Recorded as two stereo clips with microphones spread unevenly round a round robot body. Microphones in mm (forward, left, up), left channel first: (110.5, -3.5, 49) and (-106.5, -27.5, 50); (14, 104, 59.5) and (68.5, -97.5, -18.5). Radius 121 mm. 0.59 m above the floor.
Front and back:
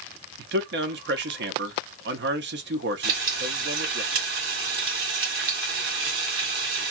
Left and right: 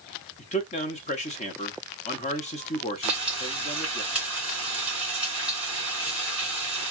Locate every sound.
0.4 s a man speaking: 175° left, 0.9 m
3.0 s frying: 150° right, 1.8 m